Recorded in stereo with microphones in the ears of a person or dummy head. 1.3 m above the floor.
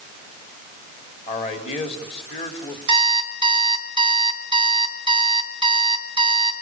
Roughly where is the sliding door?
No sliding door in this recording.